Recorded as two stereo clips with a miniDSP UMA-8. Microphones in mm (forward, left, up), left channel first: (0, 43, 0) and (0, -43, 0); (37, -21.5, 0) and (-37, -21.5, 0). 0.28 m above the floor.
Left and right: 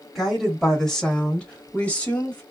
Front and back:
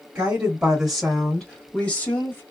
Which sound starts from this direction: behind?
A woman speaking, at 0.1 s.